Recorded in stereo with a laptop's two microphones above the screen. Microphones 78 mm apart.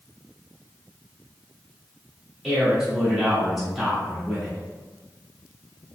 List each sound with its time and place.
2.4 s a man speaking: centre (ahead or behind), 1.9 m